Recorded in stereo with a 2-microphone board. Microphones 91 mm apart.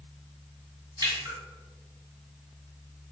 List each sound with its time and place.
1.0 s a splash: 50° right (ahead or behind), 1.8 m